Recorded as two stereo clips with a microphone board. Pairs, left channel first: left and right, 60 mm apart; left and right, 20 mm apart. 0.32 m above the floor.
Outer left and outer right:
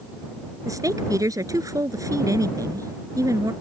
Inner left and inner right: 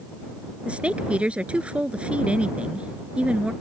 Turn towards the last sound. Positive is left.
turn(degrees=-70)  # may be behind; listen again after turning